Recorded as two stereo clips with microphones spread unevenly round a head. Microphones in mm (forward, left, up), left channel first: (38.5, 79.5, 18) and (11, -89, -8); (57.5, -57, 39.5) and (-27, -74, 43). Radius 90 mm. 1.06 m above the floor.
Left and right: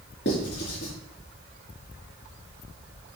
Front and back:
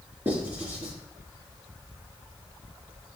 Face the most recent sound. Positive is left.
turn(degrees=115)